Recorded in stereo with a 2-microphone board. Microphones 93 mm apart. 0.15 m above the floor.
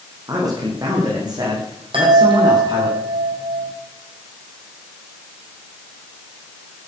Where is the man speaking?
40° right (ahead or behind), 7 m; by 2.9 s 50° right (ahead or behind), 9.5 m.